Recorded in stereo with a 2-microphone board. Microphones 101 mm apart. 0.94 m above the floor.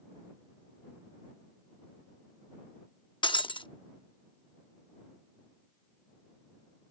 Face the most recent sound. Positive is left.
turn(degrees=55)  # may be behind; listen again after turning